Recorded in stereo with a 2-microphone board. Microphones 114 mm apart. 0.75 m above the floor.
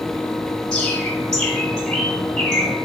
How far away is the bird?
About 1.7 m.